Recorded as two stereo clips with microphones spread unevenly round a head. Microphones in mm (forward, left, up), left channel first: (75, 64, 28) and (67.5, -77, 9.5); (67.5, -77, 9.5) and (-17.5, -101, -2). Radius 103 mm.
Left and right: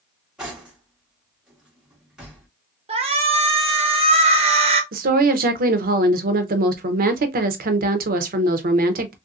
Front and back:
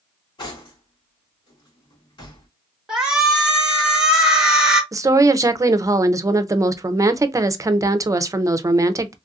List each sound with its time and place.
0.4 s cutlery clinking: 5° right, 2 m
2.9 s a shout: 90° right, 1.1 m
4.9 s a woman speaking: 110° right, 0.6 m